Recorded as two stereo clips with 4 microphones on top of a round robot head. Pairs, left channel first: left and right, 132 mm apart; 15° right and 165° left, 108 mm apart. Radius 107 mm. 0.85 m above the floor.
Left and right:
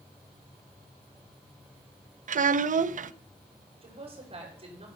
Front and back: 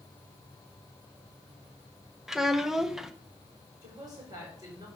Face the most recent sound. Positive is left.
turn(degrees=-135)